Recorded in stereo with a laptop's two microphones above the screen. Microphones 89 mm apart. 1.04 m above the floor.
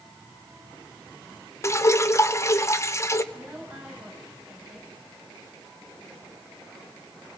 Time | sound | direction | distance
1.6 | dripping | 30° left (ahead or behind) | 0.7 m
3.3 | a woman speaking | 15° right (ahead or behind) | 6 m